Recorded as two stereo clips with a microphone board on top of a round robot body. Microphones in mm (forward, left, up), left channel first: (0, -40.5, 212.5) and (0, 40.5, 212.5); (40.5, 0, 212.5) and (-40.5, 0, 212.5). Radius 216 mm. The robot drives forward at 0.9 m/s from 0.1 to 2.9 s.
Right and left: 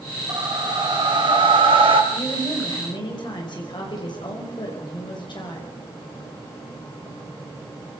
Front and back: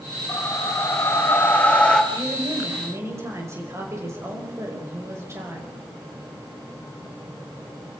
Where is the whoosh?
50° left, 3 m; by 2.0 s 80° left, 2.5 m.